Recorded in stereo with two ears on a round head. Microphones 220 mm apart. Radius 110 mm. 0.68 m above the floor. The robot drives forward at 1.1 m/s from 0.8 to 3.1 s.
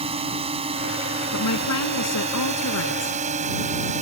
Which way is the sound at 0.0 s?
25° right (ahead or behind).